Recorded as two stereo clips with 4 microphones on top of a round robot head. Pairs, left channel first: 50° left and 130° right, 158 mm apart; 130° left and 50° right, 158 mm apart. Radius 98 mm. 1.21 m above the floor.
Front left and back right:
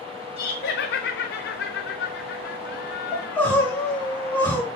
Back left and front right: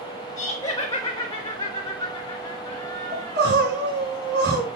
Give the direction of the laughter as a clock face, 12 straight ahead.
10 o'clock.